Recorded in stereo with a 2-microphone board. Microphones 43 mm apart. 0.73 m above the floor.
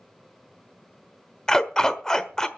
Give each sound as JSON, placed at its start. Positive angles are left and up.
{"t": 1.5, "sound": "a dog barking", "side_deg": 15, "distance_m": 1.1}